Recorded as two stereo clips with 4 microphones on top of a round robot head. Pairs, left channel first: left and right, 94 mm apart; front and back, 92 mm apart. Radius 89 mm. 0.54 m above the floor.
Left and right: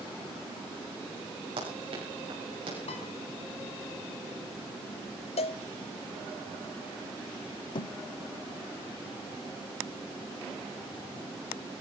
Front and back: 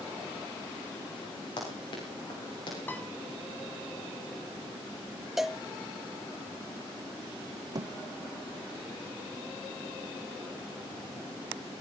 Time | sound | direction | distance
1.6 | running footsteps | 50° right | 8 m
2.9 | a piano | 65° left | 4.5 m
5.4 | a cowbell | 90° left | 1.1 m
7.8 | a thud | 130° left | 0.7 m